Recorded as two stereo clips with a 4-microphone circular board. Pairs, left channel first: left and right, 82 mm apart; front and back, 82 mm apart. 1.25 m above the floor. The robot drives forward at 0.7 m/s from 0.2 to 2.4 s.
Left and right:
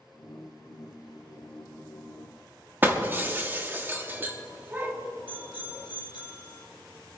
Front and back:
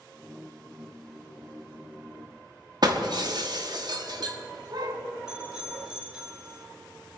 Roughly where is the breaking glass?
Behind right.